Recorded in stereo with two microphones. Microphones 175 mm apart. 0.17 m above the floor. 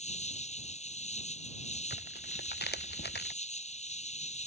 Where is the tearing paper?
70° left (ahead or behind).